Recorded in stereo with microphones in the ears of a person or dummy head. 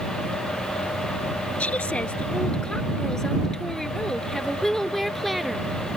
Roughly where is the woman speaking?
Centre.